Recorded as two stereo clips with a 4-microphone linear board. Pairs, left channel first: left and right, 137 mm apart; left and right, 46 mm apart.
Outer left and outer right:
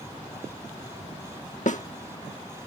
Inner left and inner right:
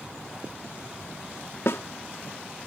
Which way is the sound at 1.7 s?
65° left (ahead or behind).